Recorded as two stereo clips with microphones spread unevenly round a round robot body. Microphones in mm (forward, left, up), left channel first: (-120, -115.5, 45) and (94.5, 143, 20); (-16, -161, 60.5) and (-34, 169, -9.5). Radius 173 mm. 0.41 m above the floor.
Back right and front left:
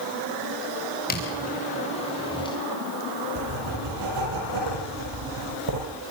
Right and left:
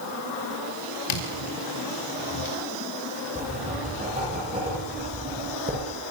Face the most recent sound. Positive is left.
turn(degrees=20)